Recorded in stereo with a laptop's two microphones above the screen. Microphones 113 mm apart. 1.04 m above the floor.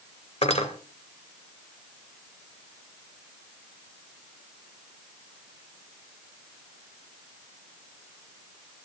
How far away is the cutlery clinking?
About 2 m.